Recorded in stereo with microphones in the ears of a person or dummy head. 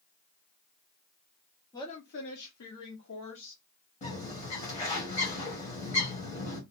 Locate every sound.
1.7 s a woman speaking: 20° left (ahead or behind), 0.6 m; by 3.6 s 55° left (ahead or behind), 1.6 m
4.0 s a bird: 35° left (ahead or behind), 1.1 m